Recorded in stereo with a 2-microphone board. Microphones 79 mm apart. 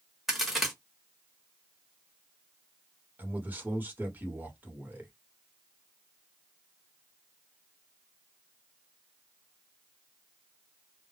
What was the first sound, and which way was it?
A crack, centre (ahead or behind).